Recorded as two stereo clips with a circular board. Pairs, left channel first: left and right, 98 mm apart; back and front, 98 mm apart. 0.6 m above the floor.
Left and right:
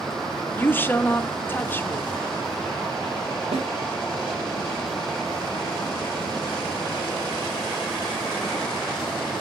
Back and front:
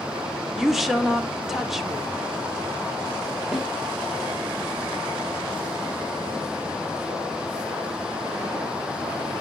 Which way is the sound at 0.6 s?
85° left.